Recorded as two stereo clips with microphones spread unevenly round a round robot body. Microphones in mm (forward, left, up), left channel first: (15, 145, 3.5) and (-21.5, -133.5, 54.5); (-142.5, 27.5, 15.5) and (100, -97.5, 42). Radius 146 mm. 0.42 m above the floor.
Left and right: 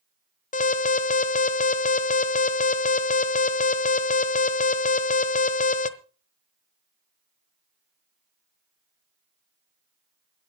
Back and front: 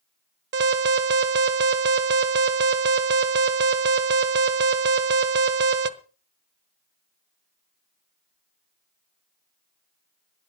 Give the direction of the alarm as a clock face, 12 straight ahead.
11 o'clock.